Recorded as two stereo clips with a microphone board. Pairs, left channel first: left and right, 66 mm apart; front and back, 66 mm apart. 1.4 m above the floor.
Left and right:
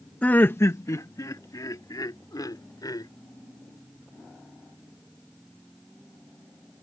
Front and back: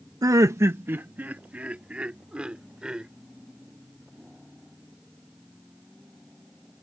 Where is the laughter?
160° left; by 3.1 s 100° left.